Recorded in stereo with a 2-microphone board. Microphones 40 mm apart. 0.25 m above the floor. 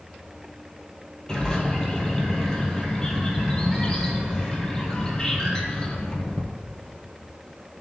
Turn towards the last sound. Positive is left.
turn(degrees=20)  # may be behind; listen again after turning